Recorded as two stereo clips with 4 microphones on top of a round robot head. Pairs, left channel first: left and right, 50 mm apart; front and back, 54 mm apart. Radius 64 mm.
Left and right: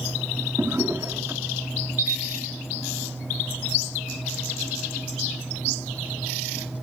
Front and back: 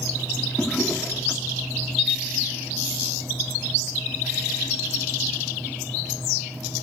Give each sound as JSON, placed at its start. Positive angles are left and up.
{"t": 0.6, "sound": "a drawer", "azimuth_deg": -70, "distance_m": 1.1}
{"t": 2.0, "sound": "a camera shutter", "azimuth_deg": -20, "distance_m": 1.3}